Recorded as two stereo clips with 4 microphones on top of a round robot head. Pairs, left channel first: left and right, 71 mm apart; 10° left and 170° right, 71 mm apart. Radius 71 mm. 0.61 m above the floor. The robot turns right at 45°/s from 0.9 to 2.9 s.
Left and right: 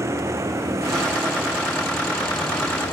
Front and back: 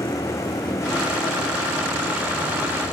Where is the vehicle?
45° right; by 2.9 s 45° left.